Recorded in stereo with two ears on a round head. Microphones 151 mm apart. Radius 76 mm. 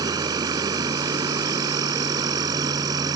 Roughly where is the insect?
Right.